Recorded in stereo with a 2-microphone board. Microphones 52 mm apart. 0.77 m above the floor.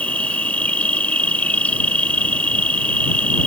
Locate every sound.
0.0 s an insect: 30° left (ahead or behind)